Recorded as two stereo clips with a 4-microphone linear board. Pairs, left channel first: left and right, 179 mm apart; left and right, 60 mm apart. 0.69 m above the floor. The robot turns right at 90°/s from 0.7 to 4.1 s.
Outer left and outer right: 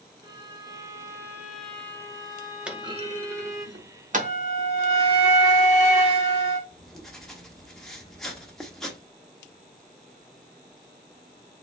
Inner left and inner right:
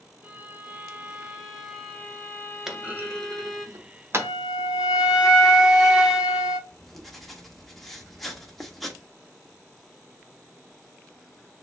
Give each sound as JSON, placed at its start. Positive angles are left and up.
{"t": 0.2, "sound": "a violin", "side_deg": -20, "distance_m": 1.0}
{"t": 2.7, "sound": "a clunk", "side_deg": -5, "distance_m": 0.8}
{"t": 4.1, "sound": "a flute", "side_deg": -15, "distance_m": 1.7}
{"t": 6.7, "sound": "writing", "side_deg": 0, "distance_m": 1.0}